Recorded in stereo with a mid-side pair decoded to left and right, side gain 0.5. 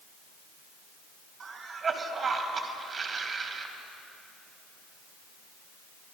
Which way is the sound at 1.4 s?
30° right.